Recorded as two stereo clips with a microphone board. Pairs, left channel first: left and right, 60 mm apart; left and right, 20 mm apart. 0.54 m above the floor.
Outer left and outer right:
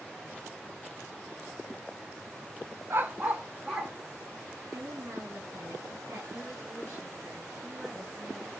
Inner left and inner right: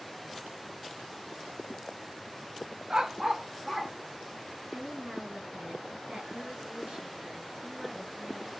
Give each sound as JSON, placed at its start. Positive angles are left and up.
{"t": 2.9, "sound": "a dog barking", "side_deg": -45, "distance_m": 0.7}
{"t": 4.7, "sound": "a woman speaking", "side_deg": -60, "distance_m": 4.5}